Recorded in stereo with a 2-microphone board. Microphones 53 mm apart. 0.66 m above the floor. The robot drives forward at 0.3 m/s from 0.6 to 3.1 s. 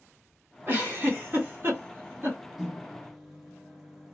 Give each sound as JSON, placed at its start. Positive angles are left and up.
{"t": 0.7, "sound": "a giggle", "side_deg": -40, "distance_m": 1.6}
{"t": 2.6, "sound": "a microwave", "side_deg": -5, "distance_m": 0.8}